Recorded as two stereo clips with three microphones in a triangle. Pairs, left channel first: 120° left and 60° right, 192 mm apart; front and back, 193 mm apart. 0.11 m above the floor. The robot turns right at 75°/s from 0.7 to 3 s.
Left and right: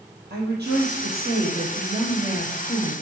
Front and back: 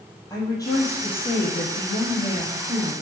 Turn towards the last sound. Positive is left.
turn(degrees=100)